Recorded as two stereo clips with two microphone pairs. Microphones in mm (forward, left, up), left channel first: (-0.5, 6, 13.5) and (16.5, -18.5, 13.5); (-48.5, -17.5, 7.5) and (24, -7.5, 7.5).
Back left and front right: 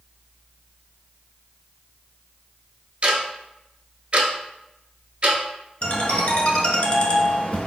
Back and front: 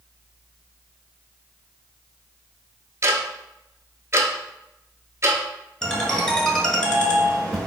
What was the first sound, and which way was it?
Ticking, 30° right.